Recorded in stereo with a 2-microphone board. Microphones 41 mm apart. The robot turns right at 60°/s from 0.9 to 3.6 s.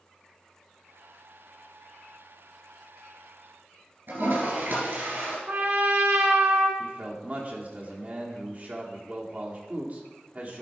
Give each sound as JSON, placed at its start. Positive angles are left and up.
{"t": 4.1, "sound": "a toilet flushing", "side_deg": -60, "distance_m": 3.0}
{"t": 5.5, "sound": "a trumpet", "side_deg": -70, "distance_m": 1.5}
{"t": 6.8, "sound": "a man speaking", "side_deg": -40, "distance_m": 1.4}